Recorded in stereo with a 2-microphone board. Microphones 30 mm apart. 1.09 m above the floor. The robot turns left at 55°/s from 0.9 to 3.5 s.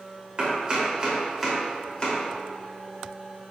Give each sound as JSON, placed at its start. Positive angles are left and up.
{"t": 0.4, "sound": "chopping", "side_deg": -30, "distance_m": 3.0}